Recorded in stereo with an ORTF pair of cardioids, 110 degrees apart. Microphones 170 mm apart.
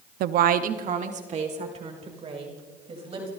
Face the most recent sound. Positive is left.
turn(degrees=-35)